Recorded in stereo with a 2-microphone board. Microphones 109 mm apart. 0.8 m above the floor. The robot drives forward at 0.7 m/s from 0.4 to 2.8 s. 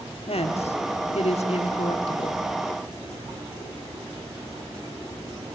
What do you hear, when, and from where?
0.3 s a woman speaking: 65° left (ahead or behind), 1.4 m; by 2.4 s 55° left (ahead or behind), 1.6 m